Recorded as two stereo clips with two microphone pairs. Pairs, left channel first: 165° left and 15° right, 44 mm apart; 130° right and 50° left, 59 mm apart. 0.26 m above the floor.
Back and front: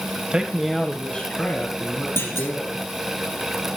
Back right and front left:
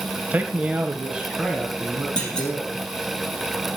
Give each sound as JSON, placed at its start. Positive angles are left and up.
{"t": 0.3, "sound": "a man speaking", "azimuth_deg": 25, "distance_m": 1.0}
{"t": 2.2, "sound": "a clunk", "azimuth_deg": 155, "distance_m": 4.0}